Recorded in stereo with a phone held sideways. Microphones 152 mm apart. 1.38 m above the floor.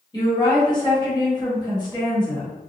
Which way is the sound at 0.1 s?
25° left (ahead or behind).